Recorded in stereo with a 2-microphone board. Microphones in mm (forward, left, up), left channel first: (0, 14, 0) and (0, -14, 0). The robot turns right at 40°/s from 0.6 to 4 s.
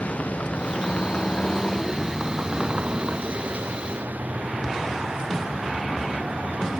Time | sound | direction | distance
0.0 | a vehicle | 120° left | ?